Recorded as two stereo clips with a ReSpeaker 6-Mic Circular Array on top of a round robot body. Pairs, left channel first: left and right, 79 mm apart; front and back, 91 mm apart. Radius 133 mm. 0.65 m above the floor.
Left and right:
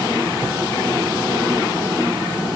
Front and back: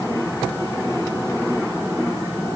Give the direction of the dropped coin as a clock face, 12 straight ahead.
No dropped coin in this recording.